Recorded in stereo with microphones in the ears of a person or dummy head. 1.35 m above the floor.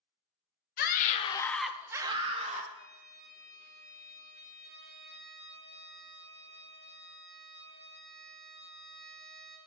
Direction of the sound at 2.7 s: 60° right (ahead or behind).